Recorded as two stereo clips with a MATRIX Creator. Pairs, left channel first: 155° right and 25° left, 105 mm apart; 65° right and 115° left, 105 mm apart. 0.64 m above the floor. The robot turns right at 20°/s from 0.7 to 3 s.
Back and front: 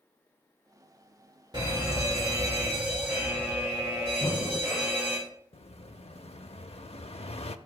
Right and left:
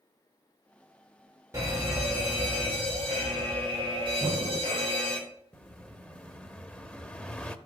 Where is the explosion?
150° right, 0.7 m.